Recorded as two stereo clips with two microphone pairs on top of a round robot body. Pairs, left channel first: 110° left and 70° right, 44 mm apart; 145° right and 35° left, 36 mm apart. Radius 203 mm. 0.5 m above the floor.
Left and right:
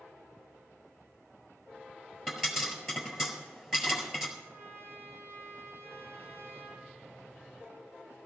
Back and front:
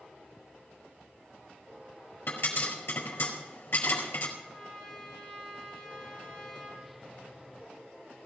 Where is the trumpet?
85° right, 5.5 m.